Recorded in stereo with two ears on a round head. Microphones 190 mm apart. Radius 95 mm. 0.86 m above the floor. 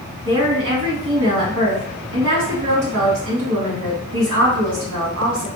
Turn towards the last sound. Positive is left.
turn(degrees=-60)  # may be behind; listen again after turning